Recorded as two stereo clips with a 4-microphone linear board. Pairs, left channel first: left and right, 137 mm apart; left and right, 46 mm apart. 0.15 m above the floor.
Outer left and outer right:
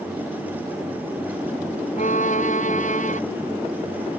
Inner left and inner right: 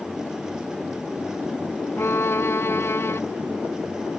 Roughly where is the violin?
Left.